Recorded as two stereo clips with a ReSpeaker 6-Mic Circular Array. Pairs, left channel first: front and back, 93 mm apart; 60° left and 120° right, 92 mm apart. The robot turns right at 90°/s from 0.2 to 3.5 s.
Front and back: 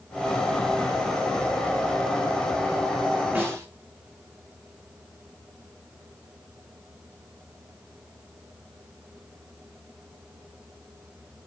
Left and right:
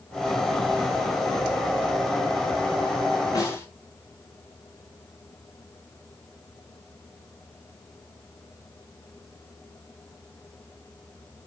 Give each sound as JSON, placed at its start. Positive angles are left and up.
{"t": 3.4, "sound": "a snare drum", "azimuth_deg": 110, "distance_m": 4.0}